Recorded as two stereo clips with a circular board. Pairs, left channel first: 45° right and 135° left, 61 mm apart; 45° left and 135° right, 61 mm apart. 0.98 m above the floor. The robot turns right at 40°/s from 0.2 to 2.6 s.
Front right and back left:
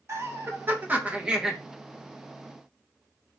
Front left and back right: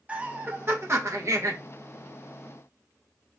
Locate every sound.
0.1 s laughter: 165° left, 1.0 m; by 1.6 s 145° right, 1.0 m